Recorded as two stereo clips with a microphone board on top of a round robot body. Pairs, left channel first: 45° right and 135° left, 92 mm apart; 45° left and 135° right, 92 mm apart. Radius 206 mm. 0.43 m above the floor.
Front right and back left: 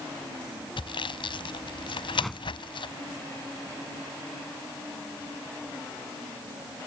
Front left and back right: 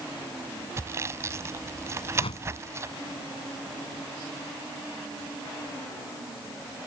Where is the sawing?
75° right.